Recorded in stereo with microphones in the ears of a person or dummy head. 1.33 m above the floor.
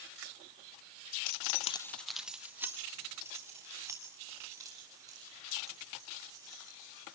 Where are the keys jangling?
50° left (ahead or behind), 0.5 m; by 7.2 s 15° right (ahead or behind), 7.5 m.